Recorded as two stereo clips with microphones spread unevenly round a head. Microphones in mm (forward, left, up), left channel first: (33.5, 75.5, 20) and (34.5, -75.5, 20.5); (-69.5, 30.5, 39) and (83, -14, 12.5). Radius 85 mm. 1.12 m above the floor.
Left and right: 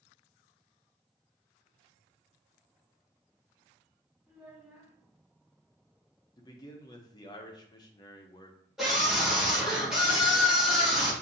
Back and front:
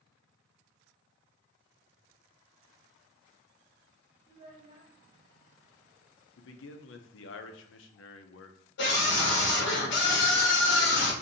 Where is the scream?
Straight behind, 1.2 m.